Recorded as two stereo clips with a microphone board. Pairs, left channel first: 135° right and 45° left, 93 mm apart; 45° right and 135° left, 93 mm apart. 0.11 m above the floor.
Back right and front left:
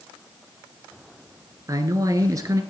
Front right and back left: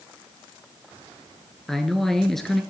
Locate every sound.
1.7 s a man speaking: 40° left, 1.4 m